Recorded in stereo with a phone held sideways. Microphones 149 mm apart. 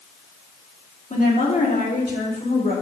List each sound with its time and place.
1.1 s a woman speaking: 60° left (ahead or behind), 2.5 m; by 2.7 s 80° left, 4 m